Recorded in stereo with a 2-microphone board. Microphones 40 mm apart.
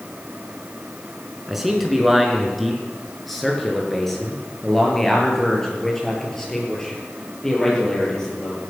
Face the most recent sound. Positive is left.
turn(degrees=15)  # may be behind; listen again after turning